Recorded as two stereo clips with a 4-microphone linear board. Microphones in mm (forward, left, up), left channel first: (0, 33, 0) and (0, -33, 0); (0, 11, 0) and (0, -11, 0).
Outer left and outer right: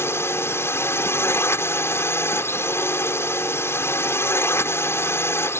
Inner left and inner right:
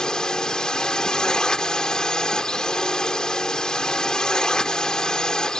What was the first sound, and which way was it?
A drone, 40° left (ahead or behind).